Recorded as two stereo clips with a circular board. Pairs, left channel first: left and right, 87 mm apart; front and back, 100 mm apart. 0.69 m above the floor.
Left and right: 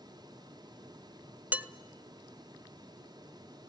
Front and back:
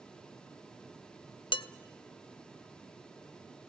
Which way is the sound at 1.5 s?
20° right.